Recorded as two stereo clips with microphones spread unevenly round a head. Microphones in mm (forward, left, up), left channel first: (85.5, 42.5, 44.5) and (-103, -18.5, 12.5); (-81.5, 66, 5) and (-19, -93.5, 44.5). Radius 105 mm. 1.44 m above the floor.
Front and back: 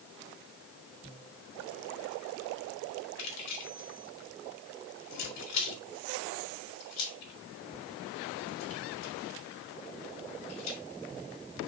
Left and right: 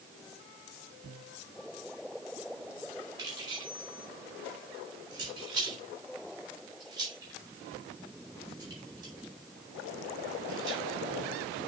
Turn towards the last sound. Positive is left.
turn(degrees=0)